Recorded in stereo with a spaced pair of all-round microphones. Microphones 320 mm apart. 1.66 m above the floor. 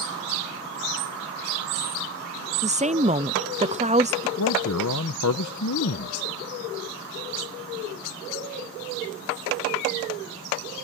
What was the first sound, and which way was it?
A woman speaking, 20° right (ahead or behind).